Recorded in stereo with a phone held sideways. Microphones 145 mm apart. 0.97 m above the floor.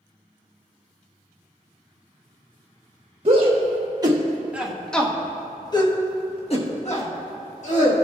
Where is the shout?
45° right (ahead or behind), 1.3 m; by 7.9 s 60° left (ahead or behind), 2 m.